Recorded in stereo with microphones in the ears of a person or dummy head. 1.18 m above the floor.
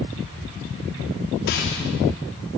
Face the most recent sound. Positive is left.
turn(degrees=55)  # may be behind; listen again after turning